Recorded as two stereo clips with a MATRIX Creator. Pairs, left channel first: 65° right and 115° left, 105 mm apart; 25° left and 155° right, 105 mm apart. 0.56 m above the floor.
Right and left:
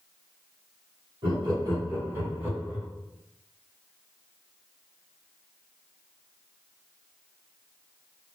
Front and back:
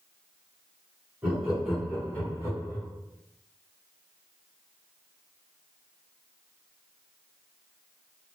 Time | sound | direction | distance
1.2 | laughter | 125° left | 1.5 m